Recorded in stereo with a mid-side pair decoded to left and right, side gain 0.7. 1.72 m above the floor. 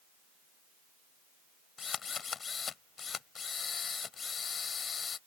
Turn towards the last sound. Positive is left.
turn(degrees=30)